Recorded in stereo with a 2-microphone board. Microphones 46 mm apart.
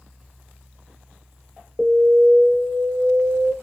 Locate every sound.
1.8 s an alarm: 5° right (ahead or behind), 1.4 m